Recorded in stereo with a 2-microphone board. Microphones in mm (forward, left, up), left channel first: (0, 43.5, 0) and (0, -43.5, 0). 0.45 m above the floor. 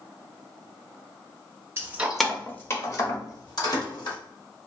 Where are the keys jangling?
30° right (ahead or behind), 0.7 m; by 4.2 s 60° left (ahead or behind), 1.8 m.